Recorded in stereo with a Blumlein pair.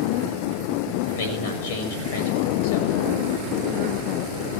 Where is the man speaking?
55° left, 6 m.